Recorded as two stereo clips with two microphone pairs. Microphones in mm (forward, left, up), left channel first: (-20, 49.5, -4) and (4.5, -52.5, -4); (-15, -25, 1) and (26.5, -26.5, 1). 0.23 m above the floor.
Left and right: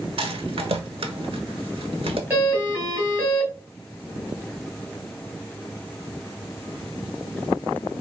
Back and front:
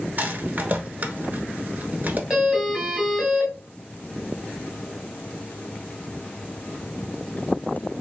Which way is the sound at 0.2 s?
50° right.